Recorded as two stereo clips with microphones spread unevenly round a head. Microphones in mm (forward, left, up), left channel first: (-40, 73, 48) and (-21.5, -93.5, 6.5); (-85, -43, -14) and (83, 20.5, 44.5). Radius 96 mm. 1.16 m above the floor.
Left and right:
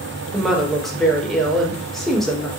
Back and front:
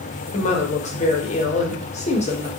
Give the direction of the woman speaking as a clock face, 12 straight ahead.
5 o'clock.